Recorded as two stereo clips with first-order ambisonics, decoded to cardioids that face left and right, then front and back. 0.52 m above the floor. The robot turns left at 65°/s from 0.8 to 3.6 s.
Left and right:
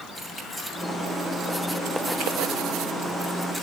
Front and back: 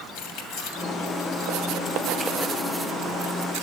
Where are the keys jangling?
5° left, 2.5 m; by 3.6 s 175° right, 2.5 m.